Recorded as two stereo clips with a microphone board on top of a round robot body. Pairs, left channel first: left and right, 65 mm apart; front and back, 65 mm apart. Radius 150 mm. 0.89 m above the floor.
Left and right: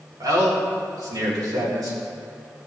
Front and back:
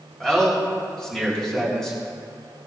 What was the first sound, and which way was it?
A man speaking, 80° right.